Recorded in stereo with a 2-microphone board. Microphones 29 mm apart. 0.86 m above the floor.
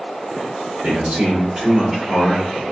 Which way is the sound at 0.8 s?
50° right (ahead or behind).